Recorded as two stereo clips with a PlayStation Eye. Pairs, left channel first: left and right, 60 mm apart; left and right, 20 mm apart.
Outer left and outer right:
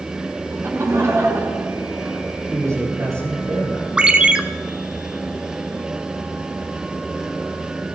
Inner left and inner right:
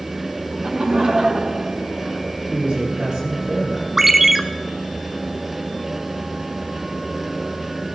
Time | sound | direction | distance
0.5 | laughter | 45° right (ahead or behind) | 1.9 m
2.5 | a man speaking | 55° right (ahead or behind) | 8 m
4.0 | a ringtone | 15° right (ahead or behind) | 0.8 m